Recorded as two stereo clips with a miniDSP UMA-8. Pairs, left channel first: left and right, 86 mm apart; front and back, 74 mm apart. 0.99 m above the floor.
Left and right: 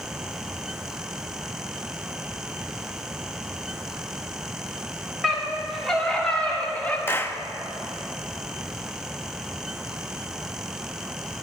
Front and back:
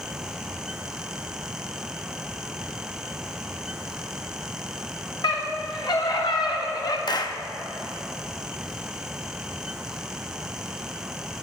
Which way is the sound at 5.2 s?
Straight ahead.